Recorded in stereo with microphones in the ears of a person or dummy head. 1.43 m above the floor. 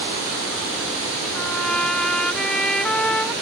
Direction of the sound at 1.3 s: 5° right (ahead or behind).